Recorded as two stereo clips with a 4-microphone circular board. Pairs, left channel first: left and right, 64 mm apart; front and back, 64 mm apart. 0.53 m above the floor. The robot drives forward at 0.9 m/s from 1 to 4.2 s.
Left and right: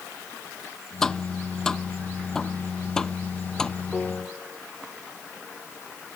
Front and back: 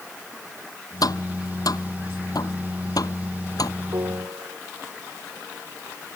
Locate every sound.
1.0 s tapping: 5° left; by 3.7 s 10° left
3.9 s a piano: 175° left